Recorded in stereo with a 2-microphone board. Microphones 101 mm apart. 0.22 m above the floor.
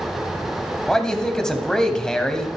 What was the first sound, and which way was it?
A man speaking, 5° left (ahead or behind).